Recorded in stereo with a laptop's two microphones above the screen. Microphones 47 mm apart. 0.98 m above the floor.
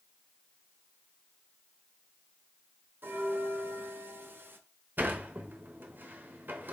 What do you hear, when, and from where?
3.0 s a bell: 50° right (ahead or behind), 0.6 m
5.0 s a sliding door: 45° right (ahead or behind), 0.9 m